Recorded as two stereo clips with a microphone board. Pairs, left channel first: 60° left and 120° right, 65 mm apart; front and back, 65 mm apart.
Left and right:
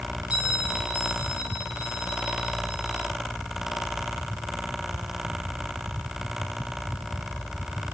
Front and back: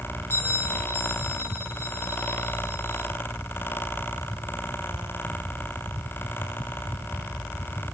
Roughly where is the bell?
Ahead right.